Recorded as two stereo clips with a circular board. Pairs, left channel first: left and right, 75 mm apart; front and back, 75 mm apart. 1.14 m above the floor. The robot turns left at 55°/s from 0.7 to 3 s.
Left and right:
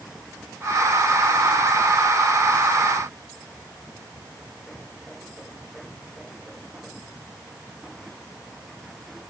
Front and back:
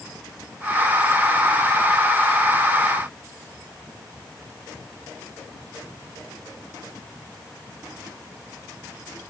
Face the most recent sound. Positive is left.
No sound to turn to.